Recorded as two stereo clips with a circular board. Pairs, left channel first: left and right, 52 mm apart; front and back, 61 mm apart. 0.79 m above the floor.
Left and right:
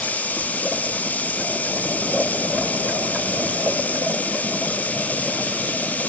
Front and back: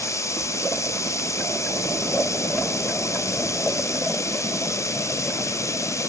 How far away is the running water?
About 1.1 m.